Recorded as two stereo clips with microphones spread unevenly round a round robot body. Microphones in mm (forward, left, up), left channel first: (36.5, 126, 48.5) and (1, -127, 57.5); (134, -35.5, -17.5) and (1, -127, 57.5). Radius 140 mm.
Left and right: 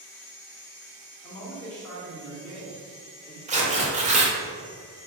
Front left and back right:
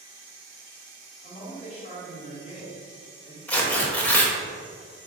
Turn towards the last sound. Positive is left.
turn(degrees=-35)